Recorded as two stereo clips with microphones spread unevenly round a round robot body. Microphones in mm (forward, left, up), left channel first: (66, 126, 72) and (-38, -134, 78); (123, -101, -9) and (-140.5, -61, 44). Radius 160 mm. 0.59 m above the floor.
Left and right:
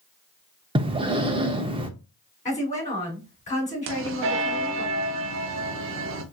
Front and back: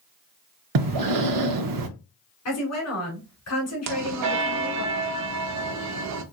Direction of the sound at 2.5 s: 5° left.